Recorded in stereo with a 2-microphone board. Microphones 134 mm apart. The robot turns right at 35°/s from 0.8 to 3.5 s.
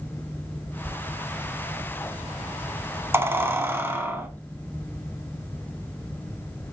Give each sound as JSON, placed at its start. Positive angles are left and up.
{"t": 0.8, "sound": "a squeak", "side_deg": -15, "distance_m": 0.6}